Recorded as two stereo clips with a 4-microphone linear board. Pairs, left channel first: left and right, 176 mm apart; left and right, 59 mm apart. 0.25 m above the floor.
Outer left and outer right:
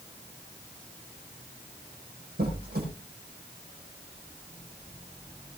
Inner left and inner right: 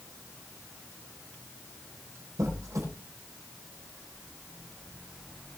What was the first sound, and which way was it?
A squeak, 60° right (ahead or behind).